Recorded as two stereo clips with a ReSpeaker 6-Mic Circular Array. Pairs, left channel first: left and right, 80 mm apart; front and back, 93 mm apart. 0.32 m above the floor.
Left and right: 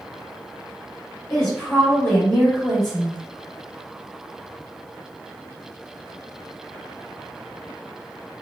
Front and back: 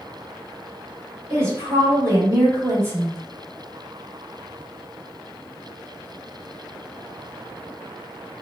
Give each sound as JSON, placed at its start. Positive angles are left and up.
{"t": 1.3, "sound": "a woman speaking", "azimuth_deg": 165, "distance_m": 1.3}